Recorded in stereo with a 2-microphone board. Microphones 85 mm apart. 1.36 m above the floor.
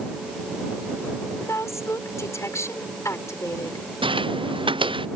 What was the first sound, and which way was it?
A woman speaking, 35° left (ahead or behind).